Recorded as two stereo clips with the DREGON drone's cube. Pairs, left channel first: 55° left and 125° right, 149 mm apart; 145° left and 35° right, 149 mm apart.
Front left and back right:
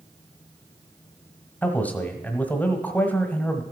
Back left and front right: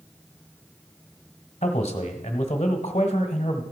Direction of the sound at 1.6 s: 130° left.